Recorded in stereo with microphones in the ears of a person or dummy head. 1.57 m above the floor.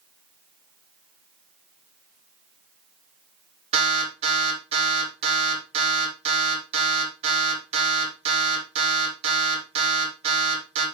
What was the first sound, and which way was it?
An alarm, 40° right (ahead or behind).